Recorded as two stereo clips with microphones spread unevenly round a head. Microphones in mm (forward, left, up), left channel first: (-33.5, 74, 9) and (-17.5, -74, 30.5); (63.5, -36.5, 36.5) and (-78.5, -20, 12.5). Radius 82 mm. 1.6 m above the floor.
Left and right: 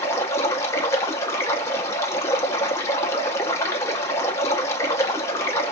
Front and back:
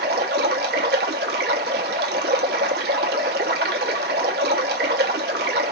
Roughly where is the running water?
Behind.